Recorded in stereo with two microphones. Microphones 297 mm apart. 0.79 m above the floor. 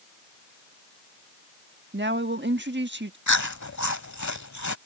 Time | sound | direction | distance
1.9 | a woman speaking | 35° right (ahead or behind) | ?
3.3 | chewing | 65° left (ahead or behind) | ?